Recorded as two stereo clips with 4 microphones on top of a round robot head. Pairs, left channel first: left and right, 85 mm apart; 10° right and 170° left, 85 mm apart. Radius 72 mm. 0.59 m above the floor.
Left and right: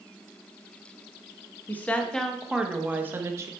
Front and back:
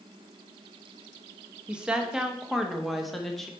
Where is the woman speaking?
105° left, 1.0 m; by 3.5 s 95° right, 1.1 m.